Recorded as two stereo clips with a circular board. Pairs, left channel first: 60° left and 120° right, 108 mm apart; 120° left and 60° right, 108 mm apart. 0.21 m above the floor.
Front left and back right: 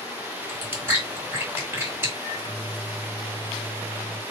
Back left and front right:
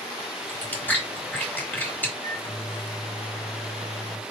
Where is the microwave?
80° left, 1.6 m.